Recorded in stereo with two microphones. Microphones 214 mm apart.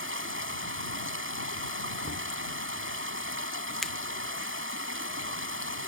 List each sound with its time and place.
0.0 s running water: 75° right (ahead or behind)
2.0 s knocking: 85° right
3.8 s a finger snap: centre (ahead or behind)